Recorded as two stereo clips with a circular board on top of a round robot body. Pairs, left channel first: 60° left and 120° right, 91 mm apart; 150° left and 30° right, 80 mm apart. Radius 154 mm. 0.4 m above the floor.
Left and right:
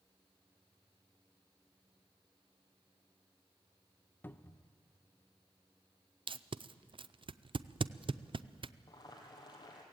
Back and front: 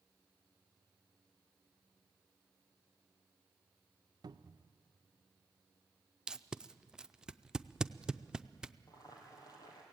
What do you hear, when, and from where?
4.2 s a cupboard door: 10° right, 0.7 m
6.3 s tape being pulled: 110° right, 0.6 m
8.9 s boiling: 105° left, 3 m